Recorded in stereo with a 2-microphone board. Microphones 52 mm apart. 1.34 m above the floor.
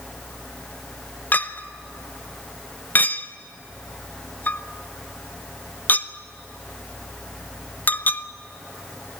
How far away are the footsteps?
No footsteps in this recording.